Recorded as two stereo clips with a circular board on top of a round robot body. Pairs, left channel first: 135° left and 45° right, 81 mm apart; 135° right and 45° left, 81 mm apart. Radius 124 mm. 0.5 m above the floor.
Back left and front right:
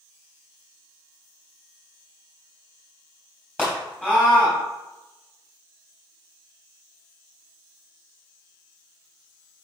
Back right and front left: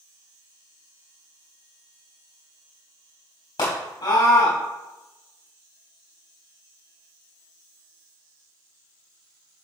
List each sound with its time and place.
3.6 s a scream: 155° right, 3.5 m